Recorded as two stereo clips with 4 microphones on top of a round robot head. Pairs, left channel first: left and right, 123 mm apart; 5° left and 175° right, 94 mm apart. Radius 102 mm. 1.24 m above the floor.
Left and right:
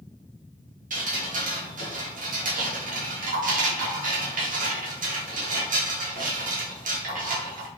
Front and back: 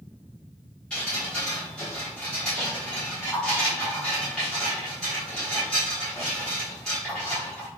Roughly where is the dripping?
Right.